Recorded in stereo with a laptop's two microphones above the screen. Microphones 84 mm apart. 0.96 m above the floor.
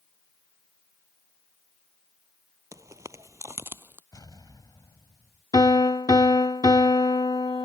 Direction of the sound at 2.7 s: 40° right (ahead or behind).